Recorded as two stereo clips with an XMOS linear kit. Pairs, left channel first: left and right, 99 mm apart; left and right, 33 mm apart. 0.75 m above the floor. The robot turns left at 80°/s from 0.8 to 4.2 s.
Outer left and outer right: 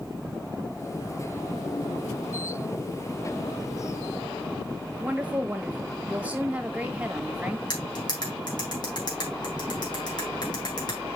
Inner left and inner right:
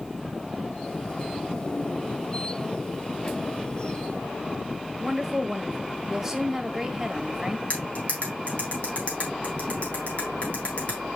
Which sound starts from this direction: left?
Cutlery clinking, at 7.7 s.